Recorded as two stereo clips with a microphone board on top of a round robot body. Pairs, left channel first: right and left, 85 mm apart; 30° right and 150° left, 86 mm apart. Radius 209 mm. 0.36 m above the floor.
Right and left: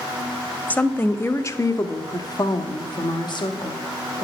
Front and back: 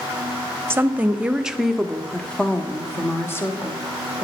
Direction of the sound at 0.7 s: 155° right.